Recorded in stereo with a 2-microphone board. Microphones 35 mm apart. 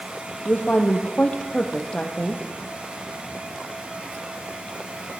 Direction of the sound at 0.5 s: 45° left (ahead or behind).